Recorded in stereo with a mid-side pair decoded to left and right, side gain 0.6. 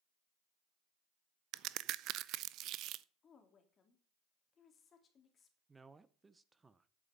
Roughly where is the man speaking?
Ahead.